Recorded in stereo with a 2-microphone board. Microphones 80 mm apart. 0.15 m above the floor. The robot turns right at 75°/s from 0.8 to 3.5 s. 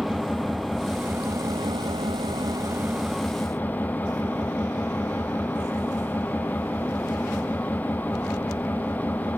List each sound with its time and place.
0.0 s an engine running: straight behind, 1.8 m; by 9.4 s 20° left, 1.8 m